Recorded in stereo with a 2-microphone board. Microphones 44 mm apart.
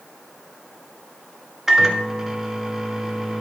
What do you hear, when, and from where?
1.7 s a microwave: 10° right (ahead or behind), 1.1 m